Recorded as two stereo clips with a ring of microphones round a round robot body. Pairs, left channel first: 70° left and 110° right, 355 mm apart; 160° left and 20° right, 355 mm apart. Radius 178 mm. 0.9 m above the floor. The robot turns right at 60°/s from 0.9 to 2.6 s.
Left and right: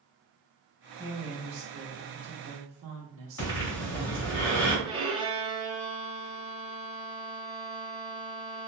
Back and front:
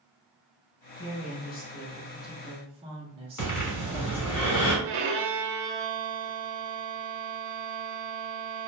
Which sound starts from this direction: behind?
A woman speaking, at 1.0 s.